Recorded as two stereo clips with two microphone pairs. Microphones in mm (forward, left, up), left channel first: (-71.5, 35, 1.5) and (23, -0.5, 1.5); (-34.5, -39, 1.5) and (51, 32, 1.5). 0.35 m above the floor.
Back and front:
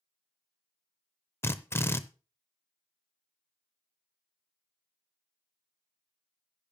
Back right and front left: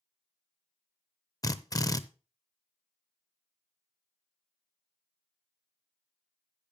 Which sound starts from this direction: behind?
A drill, at 1.4 s.